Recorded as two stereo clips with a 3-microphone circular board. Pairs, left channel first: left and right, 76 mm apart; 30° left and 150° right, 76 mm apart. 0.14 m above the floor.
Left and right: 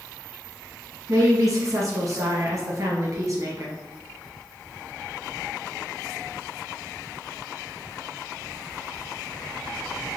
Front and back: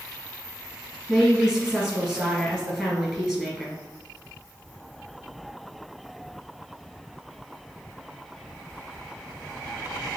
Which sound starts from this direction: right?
A woman speaking, at 1.1 s.